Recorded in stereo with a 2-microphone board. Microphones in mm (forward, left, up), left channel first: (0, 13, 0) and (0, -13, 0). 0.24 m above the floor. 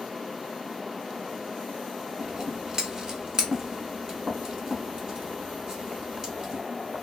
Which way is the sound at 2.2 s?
30° right (ahead or behind).